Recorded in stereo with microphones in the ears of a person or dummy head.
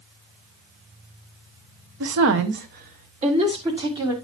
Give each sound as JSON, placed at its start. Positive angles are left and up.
{"t": 2.0, "sound": "a woman speaking", "side_deg": -85, "distance_m": 1.2}